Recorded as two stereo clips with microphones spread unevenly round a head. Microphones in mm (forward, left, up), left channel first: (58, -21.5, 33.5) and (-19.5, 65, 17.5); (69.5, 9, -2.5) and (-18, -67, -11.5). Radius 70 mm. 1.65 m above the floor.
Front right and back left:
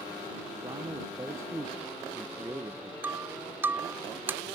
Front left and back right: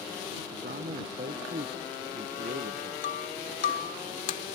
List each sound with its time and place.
0.5 s a man speaking: 155° right
3.0 s breaking glass: 55° left